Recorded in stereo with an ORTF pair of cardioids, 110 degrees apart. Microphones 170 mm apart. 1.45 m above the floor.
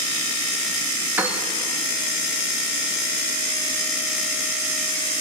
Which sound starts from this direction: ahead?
A piano, at 1.2 s.